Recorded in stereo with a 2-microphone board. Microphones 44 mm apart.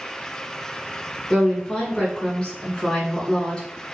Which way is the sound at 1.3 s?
20° left (ahead or behind).